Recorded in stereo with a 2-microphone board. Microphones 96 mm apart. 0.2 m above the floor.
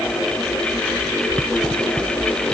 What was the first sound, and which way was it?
Only background noise.